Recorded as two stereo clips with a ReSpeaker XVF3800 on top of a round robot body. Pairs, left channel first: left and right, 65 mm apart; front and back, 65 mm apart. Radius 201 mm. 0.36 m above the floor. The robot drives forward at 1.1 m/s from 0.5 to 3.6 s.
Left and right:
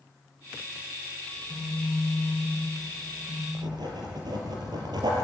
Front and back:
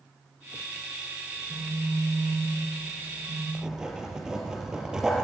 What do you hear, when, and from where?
1.3 s a phone buzzing: 160° left, 8 m; by 3.4 s 165° left, 10 m
3.5 s writing: 100° right, 4.5 m